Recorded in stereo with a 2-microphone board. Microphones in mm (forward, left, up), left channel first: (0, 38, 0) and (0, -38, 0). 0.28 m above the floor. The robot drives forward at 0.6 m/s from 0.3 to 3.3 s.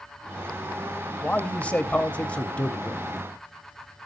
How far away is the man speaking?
About 1.1 m.